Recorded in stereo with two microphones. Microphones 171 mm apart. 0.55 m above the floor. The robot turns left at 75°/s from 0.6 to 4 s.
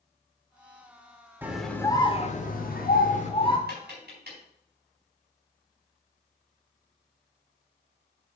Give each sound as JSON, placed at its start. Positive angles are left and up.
{"t": 1.4, "sound": "a scream", "azimuth_deg": -165, "distance_m": 1.3}
{"t": 3.7, "sound": "tapping", "side_deg": -70, "distance_m": 4.0}